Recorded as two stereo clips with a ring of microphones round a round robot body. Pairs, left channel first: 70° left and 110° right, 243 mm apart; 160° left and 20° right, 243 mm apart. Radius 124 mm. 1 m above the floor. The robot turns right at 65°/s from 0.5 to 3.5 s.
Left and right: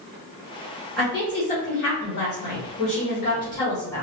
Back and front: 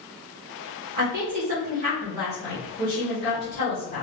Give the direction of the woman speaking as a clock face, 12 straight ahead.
1 o'clock.